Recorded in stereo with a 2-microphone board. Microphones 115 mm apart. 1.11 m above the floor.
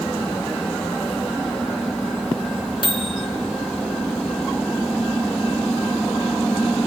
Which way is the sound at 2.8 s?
45° left (ahead or behind).